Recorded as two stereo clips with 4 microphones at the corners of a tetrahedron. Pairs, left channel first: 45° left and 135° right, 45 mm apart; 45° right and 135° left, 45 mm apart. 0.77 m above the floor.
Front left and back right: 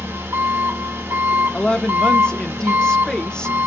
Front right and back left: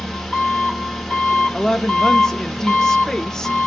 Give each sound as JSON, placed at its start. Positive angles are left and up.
{"t": 0.0, "sound": "an engine running", "azimuth_deg": -130, "distance_m": 1.0}
{"t": 1.5, "sound": "a woman speaking", "azimuth_deg": 10, "distance_m": 0.5}